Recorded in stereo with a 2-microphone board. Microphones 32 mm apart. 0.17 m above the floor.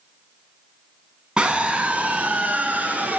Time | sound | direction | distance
1.4 | a scream | 35° right (ahead or behind) | 1.4 m